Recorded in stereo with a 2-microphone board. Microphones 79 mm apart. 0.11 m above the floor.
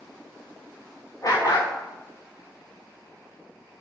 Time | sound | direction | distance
1.2 | a dog barking | 50° left (ahead or behind) | 3.5 m